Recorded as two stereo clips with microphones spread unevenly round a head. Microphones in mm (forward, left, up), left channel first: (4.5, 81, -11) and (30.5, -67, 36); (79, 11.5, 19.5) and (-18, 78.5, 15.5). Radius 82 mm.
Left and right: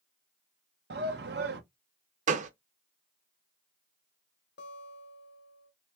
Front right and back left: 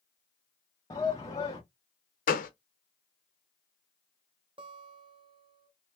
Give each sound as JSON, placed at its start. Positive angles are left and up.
{"t": 0.9, "sound": "a shout", "azimuth_deg": -105, "distance_m": 0.8}
{"t": 2.3, "sound": "a gunshot", "azimuth_deg": -50, "distance_m": 0.6}
{"t": 4.6, "sound": "a guitar", "azimuth_deg": 100, "distance_m": 0.9}